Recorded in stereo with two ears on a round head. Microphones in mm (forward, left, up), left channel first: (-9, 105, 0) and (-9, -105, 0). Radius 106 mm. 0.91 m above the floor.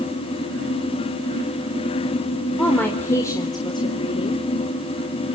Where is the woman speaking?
5° left (ahead or behind), 3.5 m; by 4.5 s 30° left (ahead or behind), 3 m.